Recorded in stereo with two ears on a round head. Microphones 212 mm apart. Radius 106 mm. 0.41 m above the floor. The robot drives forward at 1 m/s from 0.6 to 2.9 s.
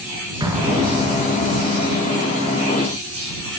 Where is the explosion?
15° right (ahead or behind), 7 m; by 1.4 s 20° right (ahead or behind), 6 m.